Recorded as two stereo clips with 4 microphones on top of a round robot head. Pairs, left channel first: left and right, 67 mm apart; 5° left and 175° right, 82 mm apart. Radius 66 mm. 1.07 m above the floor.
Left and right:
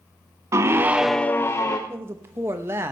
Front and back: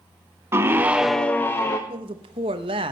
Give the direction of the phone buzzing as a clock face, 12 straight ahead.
No phone buzzing in this recording.